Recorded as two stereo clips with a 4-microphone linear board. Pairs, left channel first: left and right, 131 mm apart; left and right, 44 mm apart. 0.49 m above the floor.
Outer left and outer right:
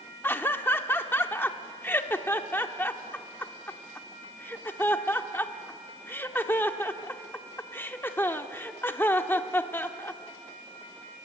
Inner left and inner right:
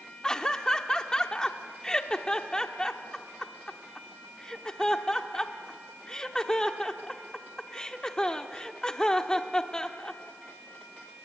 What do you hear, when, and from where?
0.2 s laughter: 15° left (ahead or behind), 1.0 m